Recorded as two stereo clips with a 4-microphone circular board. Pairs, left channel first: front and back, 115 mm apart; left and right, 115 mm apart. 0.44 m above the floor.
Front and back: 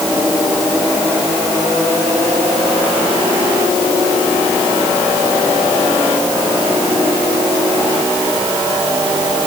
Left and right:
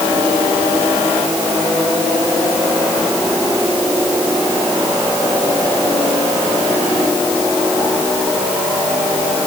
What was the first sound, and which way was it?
Only background noise.